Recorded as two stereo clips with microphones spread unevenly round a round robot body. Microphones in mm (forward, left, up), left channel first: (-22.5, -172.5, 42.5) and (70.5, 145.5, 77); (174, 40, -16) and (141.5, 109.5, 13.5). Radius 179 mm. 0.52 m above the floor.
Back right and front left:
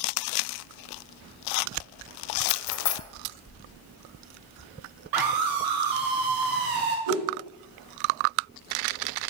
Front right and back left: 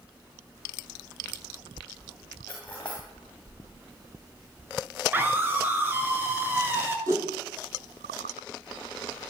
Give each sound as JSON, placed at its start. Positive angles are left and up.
{"t": 2.5, "sound": "cutlery clinking", "azimuth_deg": -140, "distance_m": 1.8}
{"t": 5.1, "sound": "a scream", "azimuth_deg": 50, "distance_m": 6.0}
{"t": 7.1, "sound": "a whoosh", "azimuth_deg": 70, "distance_m": 6.0}